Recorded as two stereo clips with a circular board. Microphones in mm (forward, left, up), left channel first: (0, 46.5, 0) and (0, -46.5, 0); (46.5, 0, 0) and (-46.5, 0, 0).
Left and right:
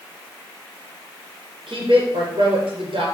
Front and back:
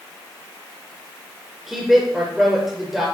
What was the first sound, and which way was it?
A woman speaking, 90° right.